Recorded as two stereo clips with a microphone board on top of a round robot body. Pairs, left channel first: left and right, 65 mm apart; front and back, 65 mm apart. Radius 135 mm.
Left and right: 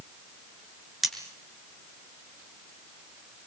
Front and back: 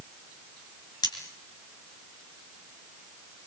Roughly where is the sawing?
I don't hear sawing.